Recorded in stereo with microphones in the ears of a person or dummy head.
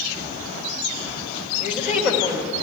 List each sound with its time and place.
1.6 s a woman speaking: 10° right (ahead or behind), 2 m